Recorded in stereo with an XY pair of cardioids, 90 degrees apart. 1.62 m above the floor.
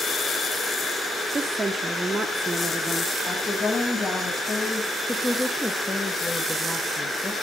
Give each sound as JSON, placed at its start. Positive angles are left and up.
{"t": 1.3, "sound": "a woman speaking", "azimuth_deg": -25, "distance_m": 1.6}
{"t": 3.3, "sound": "a woman speaking", "azimuth_deg": 40, "distance_m": 9.0}
{"t": 5.1, "sound": "a woman speaking", "azimuth_deg": 15, "distance_m": 3.0}